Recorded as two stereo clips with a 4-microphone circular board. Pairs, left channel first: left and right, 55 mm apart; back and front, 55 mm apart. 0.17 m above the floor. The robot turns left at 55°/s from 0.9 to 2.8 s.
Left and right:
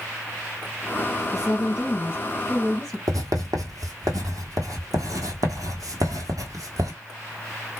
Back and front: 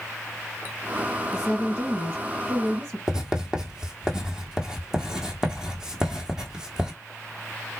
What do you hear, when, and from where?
1.3 s a woman speaking: 85° left, 2.5 m; by 3.0 s straight ahead, 2.5 m
3.1 s writing: 80° right, 1.3 m